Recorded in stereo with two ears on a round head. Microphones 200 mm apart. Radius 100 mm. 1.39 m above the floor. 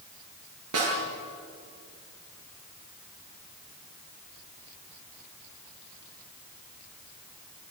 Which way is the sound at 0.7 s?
80° right.